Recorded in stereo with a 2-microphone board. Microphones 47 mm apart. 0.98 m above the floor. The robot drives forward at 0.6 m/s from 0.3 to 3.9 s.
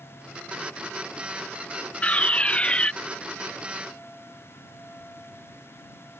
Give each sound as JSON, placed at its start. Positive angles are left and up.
{"t": 2.0, "sound": "a fire alarm", "side_deg": 30}